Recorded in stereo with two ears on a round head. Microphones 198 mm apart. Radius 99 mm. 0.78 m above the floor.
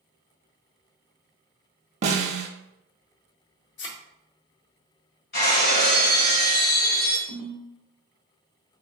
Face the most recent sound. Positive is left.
turn(degrees=20)  # may be behind; listen again after turning